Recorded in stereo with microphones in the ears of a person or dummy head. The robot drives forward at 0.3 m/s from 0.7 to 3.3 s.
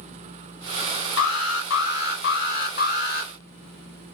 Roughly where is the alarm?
Left.